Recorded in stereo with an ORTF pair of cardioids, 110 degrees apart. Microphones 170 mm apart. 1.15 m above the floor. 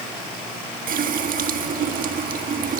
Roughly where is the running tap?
Ahead right.